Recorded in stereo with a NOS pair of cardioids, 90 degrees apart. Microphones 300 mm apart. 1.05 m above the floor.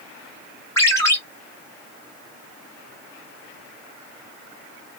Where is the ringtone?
10° left, 1.3 m.